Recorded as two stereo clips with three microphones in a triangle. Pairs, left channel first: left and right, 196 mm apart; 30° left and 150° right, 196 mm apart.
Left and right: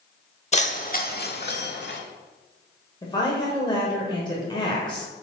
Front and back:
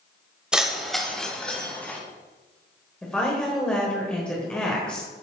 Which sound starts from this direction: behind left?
Keys jangling, at 0.5 s.